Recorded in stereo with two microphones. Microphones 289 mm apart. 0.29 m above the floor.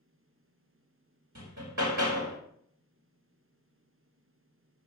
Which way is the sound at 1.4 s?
80° right.